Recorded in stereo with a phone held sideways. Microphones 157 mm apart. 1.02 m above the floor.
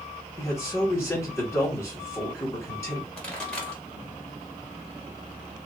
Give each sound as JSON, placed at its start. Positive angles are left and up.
{"t": 0.4, "sound": "a man speaking", "side_deg": 15, "distance_m": 2.0}
{"t": 3.2, "sound": "a pop", "side_deg": 5, "distance_m": 2.0}